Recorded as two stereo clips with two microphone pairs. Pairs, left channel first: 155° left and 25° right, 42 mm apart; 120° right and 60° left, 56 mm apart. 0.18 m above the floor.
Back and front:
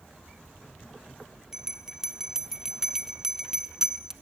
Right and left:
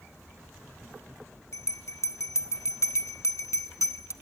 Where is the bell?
100° right, 0.6 m.